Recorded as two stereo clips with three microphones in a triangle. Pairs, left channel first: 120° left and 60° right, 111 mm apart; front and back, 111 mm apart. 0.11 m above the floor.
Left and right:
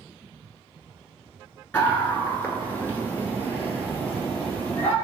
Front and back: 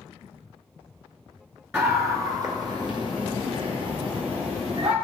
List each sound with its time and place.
1.7 s a scream: 160° left, 1.8 m; by 4.9 s 170° right, 4 m